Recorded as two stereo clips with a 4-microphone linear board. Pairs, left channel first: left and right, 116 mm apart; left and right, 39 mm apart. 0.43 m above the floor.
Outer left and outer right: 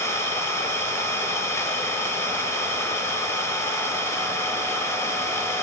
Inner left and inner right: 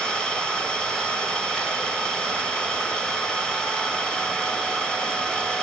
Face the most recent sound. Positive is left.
turn(degrees=25)  # may be behind; listen again after turning